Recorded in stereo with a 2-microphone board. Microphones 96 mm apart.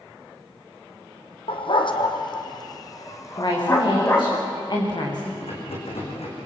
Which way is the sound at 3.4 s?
50° left (ahead or behind).